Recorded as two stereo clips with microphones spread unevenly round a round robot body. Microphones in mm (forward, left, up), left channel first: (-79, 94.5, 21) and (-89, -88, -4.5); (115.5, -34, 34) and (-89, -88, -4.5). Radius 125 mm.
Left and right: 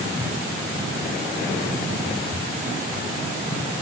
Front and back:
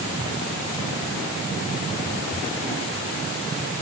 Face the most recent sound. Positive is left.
No sound to turn to.